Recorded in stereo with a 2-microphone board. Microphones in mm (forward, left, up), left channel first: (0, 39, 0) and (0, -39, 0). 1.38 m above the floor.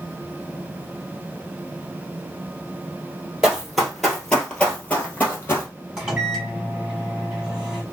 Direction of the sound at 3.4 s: 10° right (ahead or behind).